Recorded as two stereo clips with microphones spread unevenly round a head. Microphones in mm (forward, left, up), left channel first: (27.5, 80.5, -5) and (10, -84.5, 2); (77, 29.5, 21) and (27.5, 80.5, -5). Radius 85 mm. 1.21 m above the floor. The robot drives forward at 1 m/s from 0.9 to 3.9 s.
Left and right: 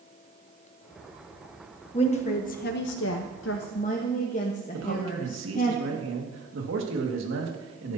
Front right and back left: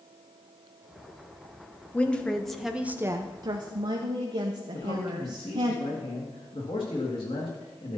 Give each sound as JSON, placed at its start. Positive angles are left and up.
{"t": 1.9, "sound": "a woman speaking", "azimuth_deg": 25, "distance_m": 1.4}
{"t": 4.7, "sound": "a man speaking", "azimuth_deg": -90, "distance_m": 1.8}